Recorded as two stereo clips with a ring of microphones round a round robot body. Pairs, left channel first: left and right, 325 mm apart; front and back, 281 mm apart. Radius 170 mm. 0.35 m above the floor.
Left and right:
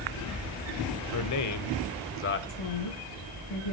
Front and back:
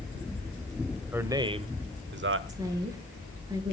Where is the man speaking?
95° left, 1.5 m; by 2.4 s 140° left, 1.6 m.